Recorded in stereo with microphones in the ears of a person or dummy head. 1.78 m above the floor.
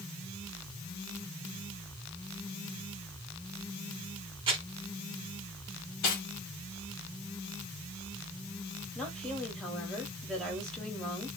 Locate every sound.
4.5 s crumpling: 25° right (ahead or behind), 2.0 m
6.0 s cutlery clinking: 50° left (ahead or behind), 1.4 m
8.9 s a woman speaking: centre (ahead or behind), 1.6 m